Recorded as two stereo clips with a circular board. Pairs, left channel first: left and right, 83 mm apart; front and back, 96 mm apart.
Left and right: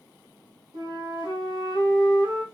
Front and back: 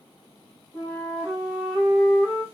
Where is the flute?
100° right, 2.5 m.